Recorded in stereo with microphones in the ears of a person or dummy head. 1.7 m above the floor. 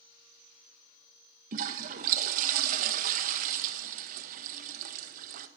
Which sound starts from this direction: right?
A toilet flushing, at 1.5 s.